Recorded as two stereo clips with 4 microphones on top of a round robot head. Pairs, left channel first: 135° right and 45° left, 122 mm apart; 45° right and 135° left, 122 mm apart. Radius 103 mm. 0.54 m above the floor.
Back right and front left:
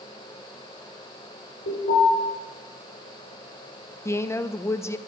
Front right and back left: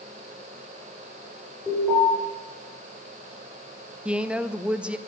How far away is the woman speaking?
About 0.6 m.